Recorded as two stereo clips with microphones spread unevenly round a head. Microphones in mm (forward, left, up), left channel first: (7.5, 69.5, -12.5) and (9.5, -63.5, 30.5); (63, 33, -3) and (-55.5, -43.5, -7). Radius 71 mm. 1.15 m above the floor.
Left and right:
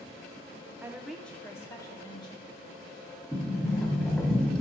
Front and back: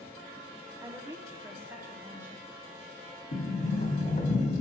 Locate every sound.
0.8 s a woman speaking: straight behind, 0.6 m; by 2.9 s 135° left, 1.9 m
3.3 s a sliding door: straight ahead, 1.1 m